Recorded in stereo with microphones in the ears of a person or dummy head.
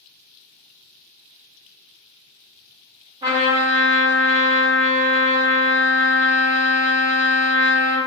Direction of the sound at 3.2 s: 20° right (ahead or behind).